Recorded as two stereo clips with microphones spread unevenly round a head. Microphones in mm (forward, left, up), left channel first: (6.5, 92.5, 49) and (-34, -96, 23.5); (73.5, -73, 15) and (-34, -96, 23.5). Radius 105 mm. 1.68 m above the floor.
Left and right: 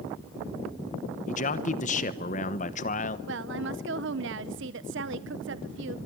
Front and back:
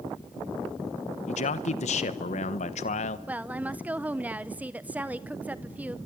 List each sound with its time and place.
1.3 s a man speaking: 30° left, 1.1 m
3.3 s a woman speaking: 100° right, 0.7 m